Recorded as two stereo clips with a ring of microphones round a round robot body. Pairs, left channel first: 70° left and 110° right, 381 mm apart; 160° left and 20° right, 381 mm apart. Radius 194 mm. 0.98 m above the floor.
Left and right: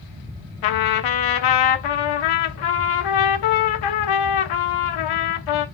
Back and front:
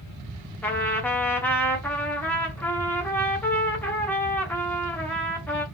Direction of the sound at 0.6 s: 75° left.